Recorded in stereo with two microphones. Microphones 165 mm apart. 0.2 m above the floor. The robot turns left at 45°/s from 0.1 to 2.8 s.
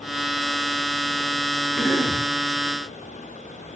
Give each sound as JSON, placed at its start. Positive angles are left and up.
{"t": 1.8, "sound": "a cough", "side_deg": 5, "distance_m": 1.9}